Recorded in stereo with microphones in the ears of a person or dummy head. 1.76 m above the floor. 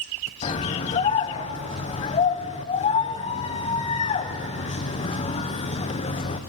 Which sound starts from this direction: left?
A scream, at 0.4 s.